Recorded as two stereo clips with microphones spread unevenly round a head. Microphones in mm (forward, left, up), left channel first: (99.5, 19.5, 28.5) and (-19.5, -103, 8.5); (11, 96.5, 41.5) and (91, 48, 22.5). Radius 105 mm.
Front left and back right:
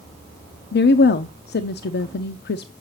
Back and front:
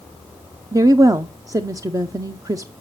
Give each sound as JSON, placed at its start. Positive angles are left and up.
{"t": 0.7, "sound": "a woman speaking", "azimuth_deg": 20, "distance_m": 0.5}